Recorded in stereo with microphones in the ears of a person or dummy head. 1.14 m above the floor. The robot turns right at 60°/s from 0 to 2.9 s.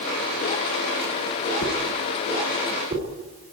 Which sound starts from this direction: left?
A whoosh, at 1.6 s.